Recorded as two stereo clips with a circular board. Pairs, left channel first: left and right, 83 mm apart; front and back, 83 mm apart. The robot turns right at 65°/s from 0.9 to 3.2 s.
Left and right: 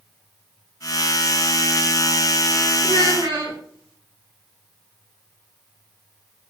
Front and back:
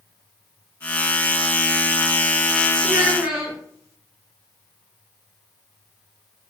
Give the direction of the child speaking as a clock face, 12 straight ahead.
4 o'clock.